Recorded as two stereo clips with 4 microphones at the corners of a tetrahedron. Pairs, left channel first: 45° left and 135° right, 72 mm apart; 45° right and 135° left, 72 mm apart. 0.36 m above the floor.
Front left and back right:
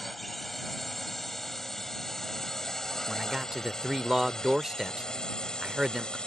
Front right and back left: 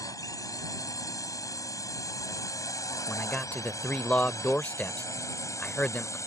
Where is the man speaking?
65° right.